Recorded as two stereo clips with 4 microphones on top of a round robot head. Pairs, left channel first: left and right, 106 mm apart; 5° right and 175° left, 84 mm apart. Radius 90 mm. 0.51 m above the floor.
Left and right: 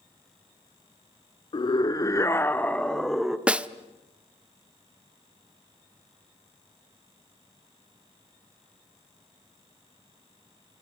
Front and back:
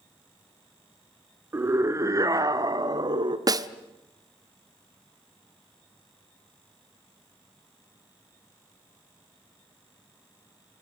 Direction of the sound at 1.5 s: 120° left.